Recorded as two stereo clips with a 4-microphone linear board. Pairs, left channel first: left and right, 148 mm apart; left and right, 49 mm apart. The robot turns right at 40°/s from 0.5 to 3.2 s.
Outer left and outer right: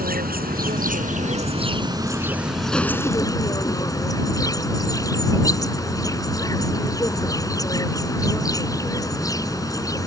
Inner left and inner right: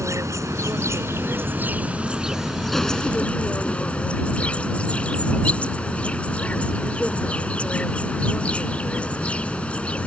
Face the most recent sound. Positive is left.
turn(degrees=25)